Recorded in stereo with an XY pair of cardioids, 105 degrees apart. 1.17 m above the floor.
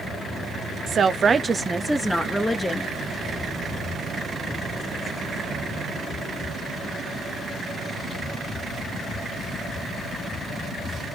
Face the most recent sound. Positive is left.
turn(degrees=20)